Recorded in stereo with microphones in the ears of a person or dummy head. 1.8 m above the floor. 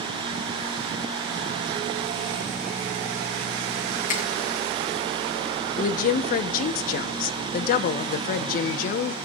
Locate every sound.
4.1 s a finger snap: 50° left (ahead or behind), 3 m
5.8 s a woman speaking: 50° left (ahead or behind), 1.1 m